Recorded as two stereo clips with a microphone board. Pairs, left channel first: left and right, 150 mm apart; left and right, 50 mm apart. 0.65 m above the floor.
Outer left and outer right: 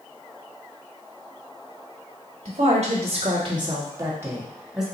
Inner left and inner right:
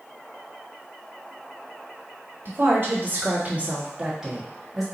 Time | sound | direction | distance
2.5 | a woman speaking | 50° right (ahead or behind) | 1.6 m